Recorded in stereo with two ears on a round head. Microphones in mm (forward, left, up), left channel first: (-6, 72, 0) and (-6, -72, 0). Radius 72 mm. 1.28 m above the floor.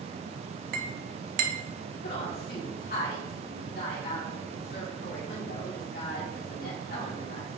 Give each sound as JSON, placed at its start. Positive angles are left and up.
{"t": 0.7, "sound": "a clink", "side_deg": -60, "distance_m": 0.9}
{"t": 2.0, "sound": "a woman speaking", "side_deg": 70, "distance_m": 2.5}